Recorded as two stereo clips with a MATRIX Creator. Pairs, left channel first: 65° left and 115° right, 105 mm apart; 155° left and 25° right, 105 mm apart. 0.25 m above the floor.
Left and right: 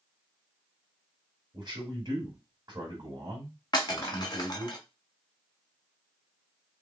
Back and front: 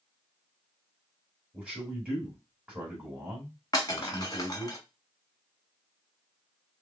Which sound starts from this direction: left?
Breaking glass, at 3.7 s.